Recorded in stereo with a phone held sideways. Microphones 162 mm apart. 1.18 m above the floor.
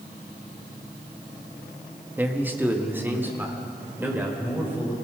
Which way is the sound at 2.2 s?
10° right (ahead or behind).